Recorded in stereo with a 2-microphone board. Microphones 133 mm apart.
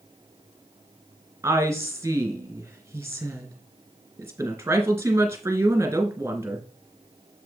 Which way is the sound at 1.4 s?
20° right (ahead or behind).